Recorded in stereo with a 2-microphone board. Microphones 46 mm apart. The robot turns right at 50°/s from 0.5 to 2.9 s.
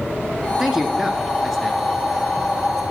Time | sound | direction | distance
0.6 | a man speaking | 15° right (ahead or behind) | 1.1 m